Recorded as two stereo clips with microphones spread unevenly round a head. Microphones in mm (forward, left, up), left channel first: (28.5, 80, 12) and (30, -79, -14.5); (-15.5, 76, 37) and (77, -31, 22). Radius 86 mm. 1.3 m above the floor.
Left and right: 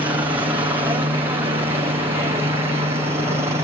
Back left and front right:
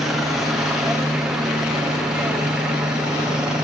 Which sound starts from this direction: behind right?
A helicopter, at 0.0 s.